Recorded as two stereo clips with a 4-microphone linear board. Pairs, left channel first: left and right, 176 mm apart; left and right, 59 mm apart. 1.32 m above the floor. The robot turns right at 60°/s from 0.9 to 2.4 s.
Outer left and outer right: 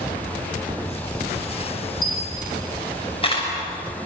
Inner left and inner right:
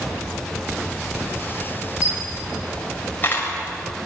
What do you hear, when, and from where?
2.0 s a camera shutter: 55° left (ahead or behind), 6.5 m; by 3.5 s 30° left (ahead or behind), 6.5 m